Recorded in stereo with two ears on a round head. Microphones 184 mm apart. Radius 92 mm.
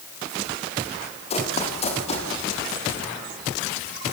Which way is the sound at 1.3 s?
30° left (ahead or behind).